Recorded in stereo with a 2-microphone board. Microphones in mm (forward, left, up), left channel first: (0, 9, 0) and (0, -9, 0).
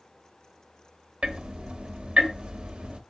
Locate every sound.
1.2 s ticking: 65° right (ahead or behind), 0.5 m